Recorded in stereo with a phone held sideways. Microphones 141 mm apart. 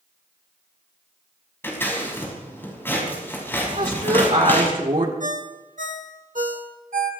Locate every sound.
1.6 s scissors: 15° left (ahead or behind), 6 m
3.7 s a woman speaking: 70° right (ahead or behind), 2.5 m
5.2 s a ringtone: 65° right (ahead or behind), 1.4 m